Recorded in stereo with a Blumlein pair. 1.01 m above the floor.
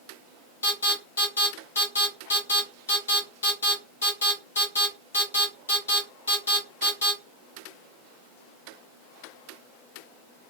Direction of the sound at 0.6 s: 70° left.